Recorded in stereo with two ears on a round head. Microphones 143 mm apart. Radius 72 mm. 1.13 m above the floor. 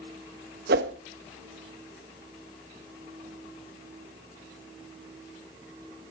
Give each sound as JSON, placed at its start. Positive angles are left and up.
{"t": 0.7, "sound": "a whoosh", "side_deg": -70, "distance_m": 1.4}